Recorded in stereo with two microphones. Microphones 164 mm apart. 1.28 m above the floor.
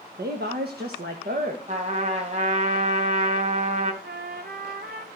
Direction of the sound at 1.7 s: 45° right (ahead or behind).